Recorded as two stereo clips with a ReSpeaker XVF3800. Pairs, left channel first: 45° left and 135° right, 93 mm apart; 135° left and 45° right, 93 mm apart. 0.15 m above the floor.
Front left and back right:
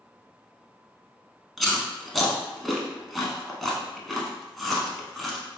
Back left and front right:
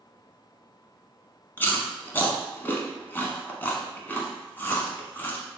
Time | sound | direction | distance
1.6 | chewing | 130° left | 0.7 m